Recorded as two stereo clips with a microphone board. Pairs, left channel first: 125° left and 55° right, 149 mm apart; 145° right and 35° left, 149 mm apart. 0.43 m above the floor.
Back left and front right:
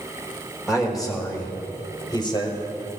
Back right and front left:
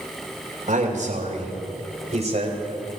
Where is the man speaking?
30° left, 2 m; by 2.6 s 70° left, 2 m.